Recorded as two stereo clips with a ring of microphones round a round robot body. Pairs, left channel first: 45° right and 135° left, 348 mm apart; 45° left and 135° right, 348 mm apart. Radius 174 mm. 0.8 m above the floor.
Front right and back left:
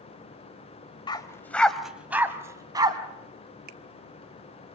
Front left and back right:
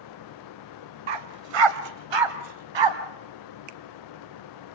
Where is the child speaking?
No child speaking in this recording.